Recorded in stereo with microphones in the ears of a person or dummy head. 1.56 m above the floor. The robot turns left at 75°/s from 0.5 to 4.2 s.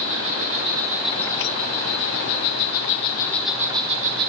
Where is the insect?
140° right, 7.5 m; by 4.3 s 55° right, 7.5 m.